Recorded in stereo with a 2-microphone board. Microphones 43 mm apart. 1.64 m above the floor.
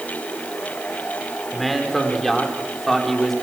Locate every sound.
1.5 s a man speaking: 5° left (ahead or behind), 5 m